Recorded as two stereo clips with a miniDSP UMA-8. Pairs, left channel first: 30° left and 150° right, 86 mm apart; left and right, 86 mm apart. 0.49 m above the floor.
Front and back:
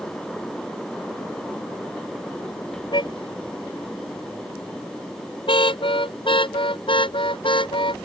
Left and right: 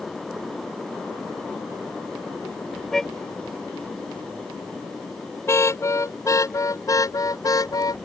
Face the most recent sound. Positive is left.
turn(degrees=45)